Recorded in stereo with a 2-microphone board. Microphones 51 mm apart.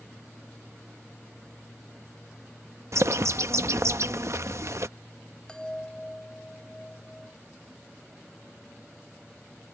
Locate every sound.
2.9 s a bird: 60° right (ahead or behind)
5.5 s a chime: 15° left (ahead or behind)